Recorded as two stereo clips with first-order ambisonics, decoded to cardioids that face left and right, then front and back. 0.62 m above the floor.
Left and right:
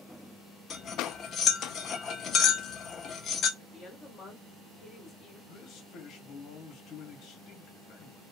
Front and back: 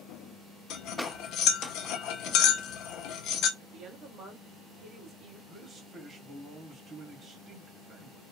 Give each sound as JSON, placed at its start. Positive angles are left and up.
{"t": 0.7, "sound": "cutlery clinking", "azimuth_deg": 30, "distance_m": 0.6}
{"t": 3.6, "sound": "a woman speaking", "azimuth_deg": 145, "distance_m": 1.5}
{"t": 5.5, "sound": "a man speaking", "azimuth_deg": 120, "distance_m": 1.3}